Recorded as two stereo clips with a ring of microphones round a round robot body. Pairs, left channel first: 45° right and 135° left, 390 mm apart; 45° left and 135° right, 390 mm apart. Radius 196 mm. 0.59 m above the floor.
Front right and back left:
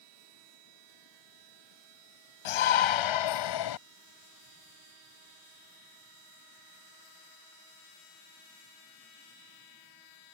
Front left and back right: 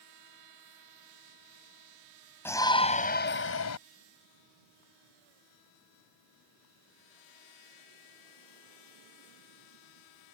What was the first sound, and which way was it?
A shout, 40° right.